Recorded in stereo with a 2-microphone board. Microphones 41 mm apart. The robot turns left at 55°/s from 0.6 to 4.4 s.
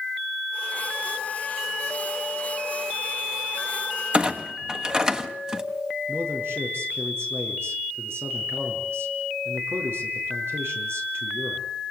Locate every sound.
4.1 s a clunk: 30° right (ahead or behind), 1.5 m; by 5.6 s 15° right (ahead or behind), 1.5 m
6.1 s a man speaking: 80° right, 6.5 m